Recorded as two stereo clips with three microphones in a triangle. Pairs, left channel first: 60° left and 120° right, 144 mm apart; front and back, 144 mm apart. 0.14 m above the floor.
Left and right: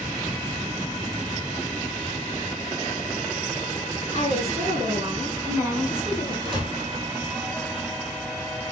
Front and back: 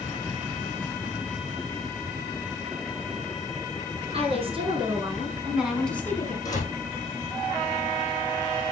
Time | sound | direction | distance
4.1 | a woman speaking | 145° right | 3 m
6.5 | a door slam | 65° right | 5 m